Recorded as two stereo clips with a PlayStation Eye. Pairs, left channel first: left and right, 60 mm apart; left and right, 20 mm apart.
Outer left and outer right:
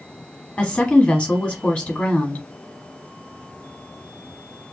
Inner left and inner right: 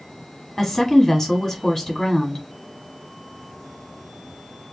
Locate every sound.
0.6 s a woman speaking: 20° left (ahead or behind), 1.1 m